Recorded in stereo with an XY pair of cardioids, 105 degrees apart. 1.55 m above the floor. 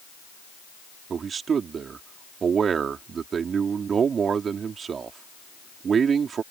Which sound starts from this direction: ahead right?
A man speaking, at 1.1 s.